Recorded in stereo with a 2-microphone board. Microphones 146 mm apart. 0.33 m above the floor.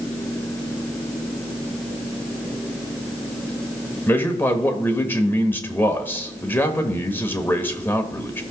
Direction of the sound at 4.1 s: 15° left (ahead or behind).